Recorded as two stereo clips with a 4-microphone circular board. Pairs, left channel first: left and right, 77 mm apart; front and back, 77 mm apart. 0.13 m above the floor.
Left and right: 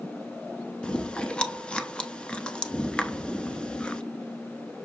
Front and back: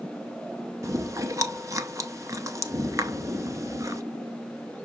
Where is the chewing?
160° left, 0.6 m.